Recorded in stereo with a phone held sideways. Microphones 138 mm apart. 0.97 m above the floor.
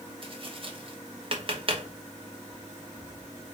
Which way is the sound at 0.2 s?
40° right (ahead or behind).